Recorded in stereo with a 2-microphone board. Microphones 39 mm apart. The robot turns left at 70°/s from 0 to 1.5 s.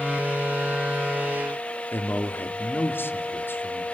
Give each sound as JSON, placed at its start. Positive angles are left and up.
{"t": 1.9, "sound": "a man speaking", "side_deg": 75, "distance_m": 3.0}